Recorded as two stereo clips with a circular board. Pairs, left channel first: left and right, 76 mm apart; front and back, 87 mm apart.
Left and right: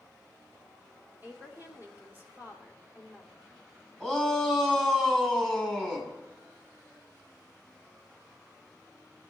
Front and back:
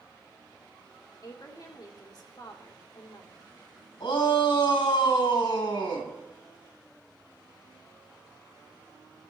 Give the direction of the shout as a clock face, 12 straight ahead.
12 o'clock.